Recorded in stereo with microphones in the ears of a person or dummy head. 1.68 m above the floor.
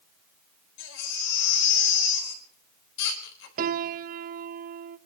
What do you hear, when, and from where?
0.8 s a baby crying: 70° left (ahead or behind), 4 m
3.6 s a piano: 45° right (ahead or behind), 0.7 m